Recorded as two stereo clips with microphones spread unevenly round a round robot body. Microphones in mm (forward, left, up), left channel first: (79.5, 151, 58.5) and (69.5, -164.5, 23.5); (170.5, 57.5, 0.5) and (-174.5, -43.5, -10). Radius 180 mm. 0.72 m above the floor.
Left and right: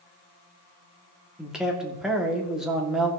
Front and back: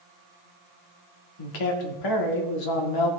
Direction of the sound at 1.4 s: 5° right.